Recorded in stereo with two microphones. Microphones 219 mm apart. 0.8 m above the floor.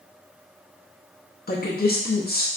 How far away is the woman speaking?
About 0.6 m.